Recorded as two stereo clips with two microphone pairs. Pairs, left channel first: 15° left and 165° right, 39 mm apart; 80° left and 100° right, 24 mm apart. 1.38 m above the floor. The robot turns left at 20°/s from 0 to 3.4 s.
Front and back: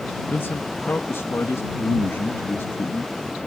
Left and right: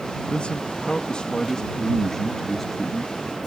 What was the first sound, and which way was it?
A man speaking, 45° left.